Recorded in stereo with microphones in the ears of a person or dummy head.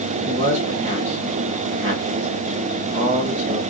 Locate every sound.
0.3 s a man speaking: 35° right (ahead or behind), 1.3 m